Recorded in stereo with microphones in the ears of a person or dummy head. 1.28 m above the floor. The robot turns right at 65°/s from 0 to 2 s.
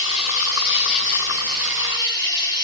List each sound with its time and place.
0.0 s an insect: 25° left, 1.2 m; by 2.6 s 155° left, 1.2 m